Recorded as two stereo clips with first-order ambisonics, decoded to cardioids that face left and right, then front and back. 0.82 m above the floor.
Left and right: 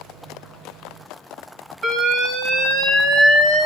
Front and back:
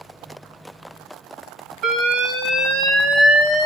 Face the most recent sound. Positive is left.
turn(degrees=-140)